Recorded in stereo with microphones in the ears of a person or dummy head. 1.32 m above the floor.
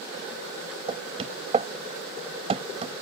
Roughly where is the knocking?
Right.